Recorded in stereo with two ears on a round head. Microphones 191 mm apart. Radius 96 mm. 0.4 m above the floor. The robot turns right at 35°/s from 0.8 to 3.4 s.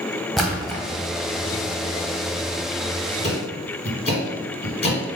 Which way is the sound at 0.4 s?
Centre (ahead or behind).